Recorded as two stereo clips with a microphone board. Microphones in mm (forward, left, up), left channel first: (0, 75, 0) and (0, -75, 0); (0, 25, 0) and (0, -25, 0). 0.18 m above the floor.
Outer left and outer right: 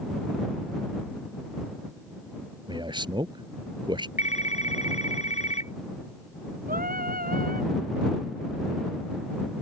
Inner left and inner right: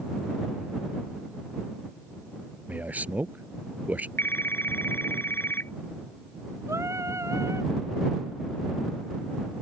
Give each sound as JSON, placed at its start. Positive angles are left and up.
{"t": 2.7, "sound": "a man speaking", "side_deg": -30}
{"t": 4.2, "sound": "a phone ringing", "side_deg": 50}
{"t": 6.7, "sound": "singing", "side_deg": -75}